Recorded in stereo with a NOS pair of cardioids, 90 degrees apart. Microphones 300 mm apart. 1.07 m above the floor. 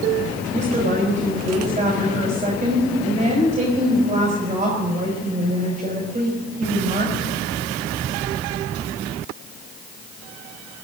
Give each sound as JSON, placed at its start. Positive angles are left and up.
{"t": 0.5, "sound": "a woman speaking", "azimuth_deg": -25, "distance_m": 5.0}